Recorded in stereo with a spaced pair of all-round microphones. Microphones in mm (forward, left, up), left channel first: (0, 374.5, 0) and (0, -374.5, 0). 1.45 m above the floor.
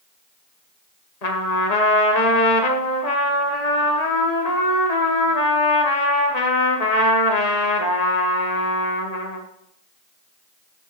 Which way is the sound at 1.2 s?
60° left (ahead or behind).